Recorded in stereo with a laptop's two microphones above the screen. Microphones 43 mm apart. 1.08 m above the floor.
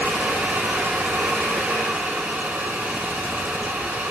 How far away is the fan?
About 1.8 m.